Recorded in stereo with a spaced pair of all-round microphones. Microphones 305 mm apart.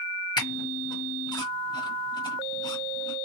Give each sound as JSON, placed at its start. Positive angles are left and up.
{"t": 0.4, "sound": "a squeak", "side_deg": 15, "distance_m": 1.1}